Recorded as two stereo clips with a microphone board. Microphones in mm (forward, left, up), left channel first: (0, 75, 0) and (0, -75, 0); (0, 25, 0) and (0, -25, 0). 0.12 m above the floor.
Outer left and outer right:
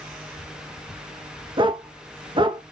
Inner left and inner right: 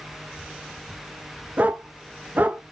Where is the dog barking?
35° right (ahead or behind), 0.6 m.